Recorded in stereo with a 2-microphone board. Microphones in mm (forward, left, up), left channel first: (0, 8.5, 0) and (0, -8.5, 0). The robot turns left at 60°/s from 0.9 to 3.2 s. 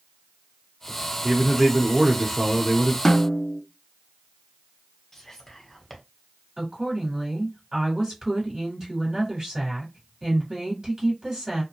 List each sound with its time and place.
1.2 s a man speaking: 20° right (ahead or behind), 0.8 m; by 3.0 s centre (ahead or behind), 0.8 m
3.0 s a snare drum: 30° left (ahead or behind), 0.5 m; by 3.6 s 40° left (ahead or behind), 0.5 m
5.1 s whispering: 25° left (ahead or behind), 1.1 m
6.6 s a woman speaking: 40° right (ahead or behind), 1.9 m